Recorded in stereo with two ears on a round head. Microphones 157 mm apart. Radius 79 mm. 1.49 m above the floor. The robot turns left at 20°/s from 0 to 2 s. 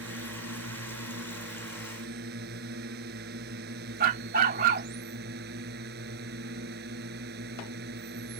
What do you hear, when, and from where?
0.0 s a drone: 75° right; by 8.4 s 115° right
4.0 s a dog barking: 55° right (ahead or behind)